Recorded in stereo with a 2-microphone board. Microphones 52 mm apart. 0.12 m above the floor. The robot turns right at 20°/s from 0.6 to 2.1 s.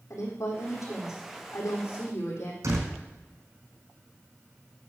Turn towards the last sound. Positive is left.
turn(degrees=-75)  # may be behind; listen again after turning